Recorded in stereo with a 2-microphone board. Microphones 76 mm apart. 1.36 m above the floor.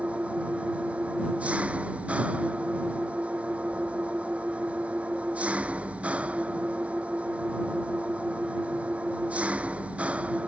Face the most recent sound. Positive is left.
turn(degrees=-15)  # may be behind; listen again after turning